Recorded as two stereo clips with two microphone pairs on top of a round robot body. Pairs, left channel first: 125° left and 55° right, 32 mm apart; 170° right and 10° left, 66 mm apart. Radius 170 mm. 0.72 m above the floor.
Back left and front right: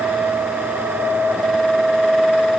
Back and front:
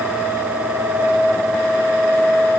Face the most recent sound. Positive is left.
No sound to turn to.